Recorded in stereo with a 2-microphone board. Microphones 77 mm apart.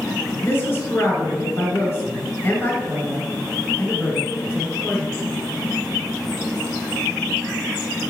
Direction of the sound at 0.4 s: 30° left (ahead or behind).